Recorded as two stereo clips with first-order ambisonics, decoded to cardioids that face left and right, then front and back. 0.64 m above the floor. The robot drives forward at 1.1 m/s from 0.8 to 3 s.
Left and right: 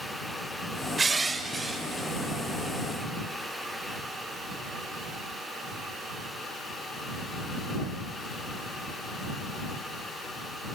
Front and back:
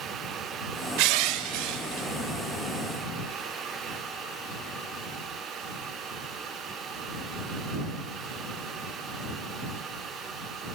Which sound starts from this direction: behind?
Crushing, at 1.0 s.